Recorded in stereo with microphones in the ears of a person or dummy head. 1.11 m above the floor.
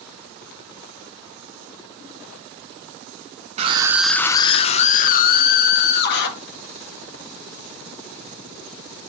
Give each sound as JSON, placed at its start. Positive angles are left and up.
{"t": 3.6, "sound": "a scream", "side_deg": -35, "distance_m": 0.7}